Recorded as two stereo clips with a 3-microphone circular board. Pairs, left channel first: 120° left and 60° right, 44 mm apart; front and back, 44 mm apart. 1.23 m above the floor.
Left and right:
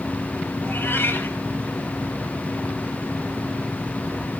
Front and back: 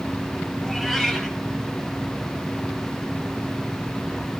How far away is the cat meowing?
About 6.5 m.